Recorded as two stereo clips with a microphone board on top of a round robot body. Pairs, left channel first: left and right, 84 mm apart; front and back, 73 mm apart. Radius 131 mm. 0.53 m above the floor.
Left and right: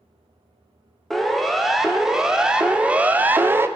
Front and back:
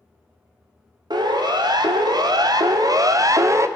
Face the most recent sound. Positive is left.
turn(degrees=-145)